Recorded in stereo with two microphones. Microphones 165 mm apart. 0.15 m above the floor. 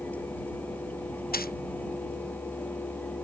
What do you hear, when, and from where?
1.3 s a dropped coin: 65° left (ahead or behind)